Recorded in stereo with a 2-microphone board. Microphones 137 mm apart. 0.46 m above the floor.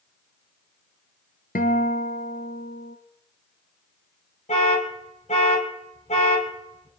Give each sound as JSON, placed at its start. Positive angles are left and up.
{"t": 1.6, "sound": "a guitar", "side_deg": 80, "distance_m": 1.9}
{"t": 4.5, "sound": "an alarm", "side_deg": 60, "distance_m": 4.0}